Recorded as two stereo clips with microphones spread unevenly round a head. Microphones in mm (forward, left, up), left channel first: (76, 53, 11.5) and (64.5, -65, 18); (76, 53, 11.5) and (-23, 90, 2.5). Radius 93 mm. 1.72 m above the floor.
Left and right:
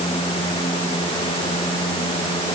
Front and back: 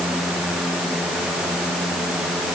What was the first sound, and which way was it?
Only background noise.